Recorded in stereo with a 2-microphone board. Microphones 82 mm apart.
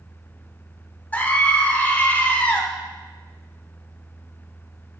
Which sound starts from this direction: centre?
A scream, at 1.1 s.